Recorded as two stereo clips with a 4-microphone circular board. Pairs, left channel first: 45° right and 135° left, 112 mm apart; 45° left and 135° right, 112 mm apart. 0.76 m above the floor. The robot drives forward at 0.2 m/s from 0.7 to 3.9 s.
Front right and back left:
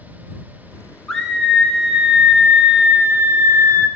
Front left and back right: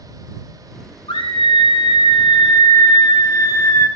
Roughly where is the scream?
Ahead left.